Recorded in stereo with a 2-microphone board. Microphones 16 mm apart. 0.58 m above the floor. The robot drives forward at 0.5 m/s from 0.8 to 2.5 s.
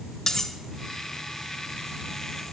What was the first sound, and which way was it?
Cutlery clinking, 35° left (ahead or behind).